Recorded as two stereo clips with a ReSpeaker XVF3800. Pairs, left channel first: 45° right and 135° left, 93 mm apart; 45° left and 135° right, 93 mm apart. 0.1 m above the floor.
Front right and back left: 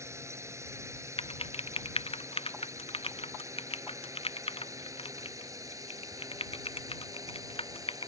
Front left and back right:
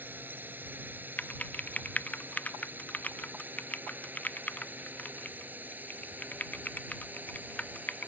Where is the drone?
170° left; by 8.1 s 160° left.